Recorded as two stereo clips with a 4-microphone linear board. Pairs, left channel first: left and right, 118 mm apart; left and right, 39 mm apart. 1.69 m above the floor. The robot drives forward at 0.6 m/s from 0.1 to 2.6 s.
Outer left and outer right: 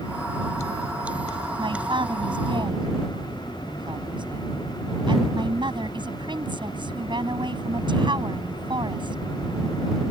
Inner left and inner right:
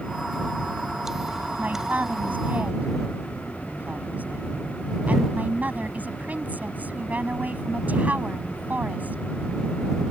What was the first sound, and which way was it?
A man speaking, 45° right (ahead or behind).